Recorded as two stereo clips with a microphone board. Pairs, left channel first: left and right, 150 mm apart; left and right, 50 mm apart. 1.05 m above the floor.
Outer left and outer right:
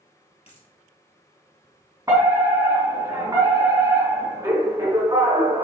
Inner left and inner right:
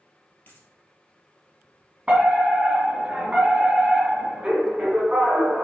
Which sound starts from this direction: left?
A dropped coin, at 0.5 s.